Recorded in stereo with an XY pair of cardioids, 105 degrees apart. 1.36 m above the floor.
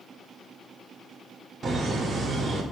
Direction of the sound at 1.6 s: 45° right.